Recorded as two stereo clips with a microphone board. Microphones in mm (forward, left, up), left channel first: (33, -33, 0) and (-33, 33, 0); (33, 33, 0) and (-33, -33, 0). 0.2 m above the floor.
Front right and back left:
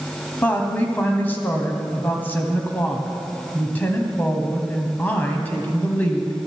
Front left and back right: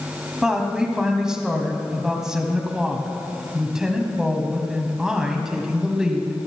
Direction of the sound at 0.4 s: 65° right.